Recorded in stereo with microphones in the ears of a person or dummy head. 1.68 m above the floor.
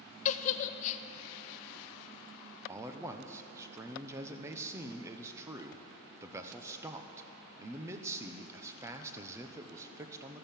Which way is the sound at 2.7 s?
15° right (ahead or behind).